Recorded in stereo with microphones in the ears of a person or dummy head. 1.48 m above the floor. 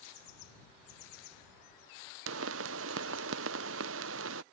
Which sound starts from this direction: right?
A pop, at 2.3 s.